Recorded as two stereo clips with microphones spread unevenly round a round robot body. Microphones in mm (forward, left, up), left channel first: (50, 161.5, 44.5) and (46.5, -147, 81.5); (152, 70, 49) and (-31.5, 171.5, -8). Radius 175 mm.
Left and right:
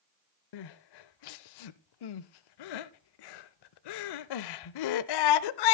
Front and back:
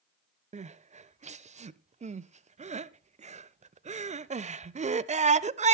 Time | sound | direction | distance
0.5 | crying | 85° left | 0.5 m